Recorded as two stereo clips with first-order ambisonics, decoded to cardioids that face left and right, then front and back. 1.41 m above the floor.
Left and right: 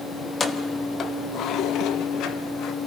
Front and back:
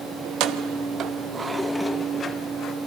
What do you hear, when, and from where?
0.2 s keys jangling: 165° left, 1.1 m; by 2.8 s 50° left, 1.2 m